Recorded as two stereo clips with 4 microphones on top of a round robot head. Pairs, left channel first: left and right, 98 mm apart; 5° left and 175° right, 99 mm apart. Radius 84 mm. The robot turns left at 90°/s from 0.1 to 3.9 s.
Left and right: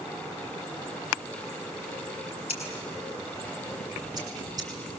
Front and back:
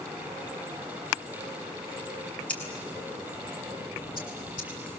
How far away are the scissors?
About 7.5 m.